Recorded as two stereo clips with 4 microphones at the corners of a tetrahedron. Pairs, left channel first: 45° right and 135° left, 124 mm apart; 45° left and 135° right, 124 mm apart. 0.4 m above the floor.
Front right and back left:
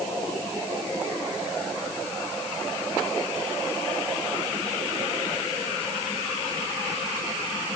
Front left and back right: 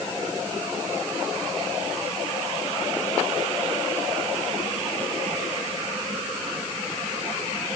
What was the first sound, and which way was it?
Only background noise.